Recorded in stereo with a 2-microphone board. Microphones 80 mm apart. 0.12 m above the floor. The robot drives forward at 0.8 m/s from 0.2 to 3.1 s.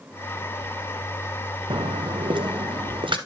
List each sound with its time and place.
1.7 s footsteps: 85° right, 0.7 m; by 3.2 s 70° right (ahead or behind), 3 m